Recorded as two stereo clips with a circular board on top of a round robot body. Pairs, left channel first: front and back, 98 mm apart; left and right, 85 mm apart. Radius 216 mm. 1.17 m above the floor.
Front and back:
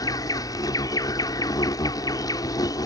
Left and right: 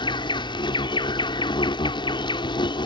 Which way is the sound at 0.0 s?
55° left.